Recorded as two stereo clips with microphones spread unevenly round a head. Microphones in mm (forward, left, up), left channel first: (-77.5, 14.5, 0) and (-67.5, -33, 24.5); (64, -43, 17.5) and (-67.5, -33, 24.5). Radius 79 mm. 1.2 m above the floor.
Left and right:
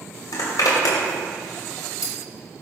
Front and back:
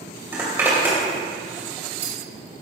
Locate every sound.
0.3 s a zipper: 100° left, 2.5 m